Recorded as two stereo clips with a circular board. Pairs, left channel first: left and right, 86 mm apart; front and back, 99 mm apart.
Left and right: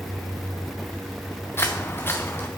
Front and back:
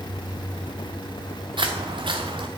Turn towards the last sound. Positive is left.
turn(degrees=150)